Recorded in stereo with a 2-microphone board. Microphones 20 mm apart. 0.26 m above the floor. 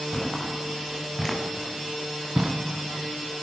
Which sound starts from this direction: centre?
Footsteps, at 0.1 s.